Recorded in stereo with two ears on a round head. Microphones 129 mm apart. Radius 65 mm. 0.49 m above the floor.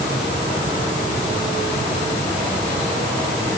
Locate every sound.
Only background noise.